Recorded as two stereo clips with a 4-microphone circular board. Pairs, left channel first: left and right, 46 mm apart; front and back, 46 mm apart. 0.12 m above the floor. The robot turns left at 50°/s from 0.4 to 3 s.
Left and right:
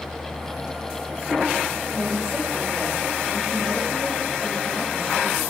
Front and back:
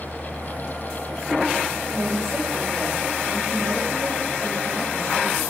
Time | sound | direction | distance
1.9 | a woman speaking | 160° right | 6 m